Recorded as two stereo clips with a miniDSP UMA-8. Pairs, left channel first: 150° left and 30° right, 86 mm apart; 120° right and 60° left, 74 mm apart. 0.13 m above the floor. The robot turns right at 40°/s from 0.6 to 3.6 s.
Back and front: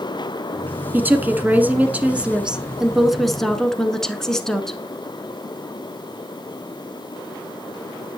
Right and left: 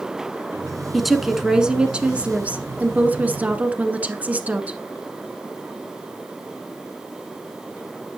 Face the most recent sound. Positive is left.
turn(degrees=80)